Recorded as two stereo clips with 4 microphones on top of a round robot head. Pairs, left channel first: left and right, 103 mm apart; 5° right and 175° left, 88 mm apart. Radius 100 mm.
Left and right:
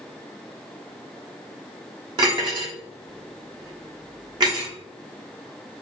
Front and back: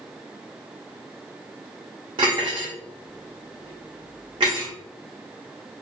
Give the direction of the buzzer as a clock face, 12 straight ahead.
I don't hear a buzzer.